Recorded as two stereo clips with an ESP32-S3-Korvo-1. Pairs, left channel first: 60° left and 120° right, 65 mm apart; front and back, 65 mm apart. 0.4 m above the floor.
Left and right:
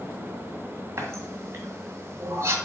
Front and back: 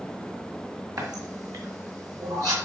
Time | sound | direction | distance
1.0 | a running tap | 165° right | 2.0 m